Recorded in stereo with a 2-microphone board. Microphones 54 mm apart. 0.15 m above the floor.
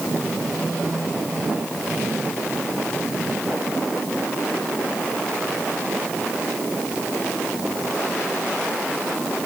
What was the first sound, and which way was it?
Only background noise.